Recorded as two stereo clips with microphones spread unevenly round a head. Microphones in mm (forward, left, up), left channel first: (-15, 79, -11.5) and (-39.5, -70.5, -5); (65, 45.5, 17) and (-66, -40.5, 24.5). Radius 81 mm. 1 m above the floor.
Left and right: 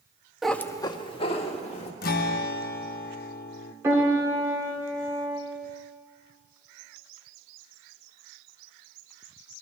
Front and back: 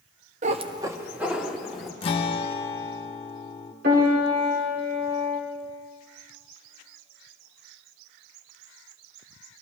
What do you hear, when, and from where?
0.4 s a cat meowing: 175° left, 0.6 m; by 1.9 s 125° left, 1.7 m
2.0 s a guitar: 85° left, 0.7 m
3.8 s a piano: 175° right, 2 m